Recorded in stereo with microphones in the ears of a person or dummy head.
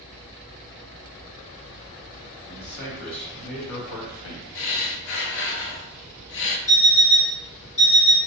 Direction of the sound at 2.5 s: 60° left (ahead or behind).